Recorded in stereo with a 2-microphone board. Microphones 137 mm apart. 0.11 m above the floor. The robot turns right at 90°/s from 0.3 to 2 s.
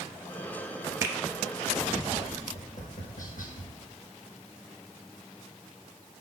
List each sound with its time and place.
1.0 s a finger snap: 15° right (ahead or behind), 1.0 m; by 1.1 s 20° right (ahead or behind), 1.0 m
2.5 s tapping: 70° left (ahead or behind), 1.4 m